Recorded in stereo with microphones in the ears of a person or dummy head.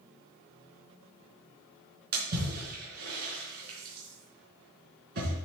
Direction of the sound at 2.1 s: 55° right (ahead or behind).